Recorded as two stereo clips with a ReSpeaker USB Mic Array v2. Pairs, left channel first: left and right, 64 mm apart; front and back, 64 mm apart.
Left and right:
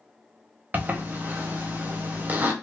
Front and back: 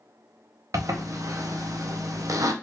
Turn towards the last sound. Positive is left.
turn(degrees=-150)